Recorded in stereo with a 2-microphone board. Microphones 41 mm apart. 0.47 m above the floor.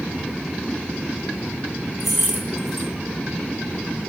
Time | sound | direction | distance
2.0 | keys jangling | 10° right (ahead or behind) | 1.8 m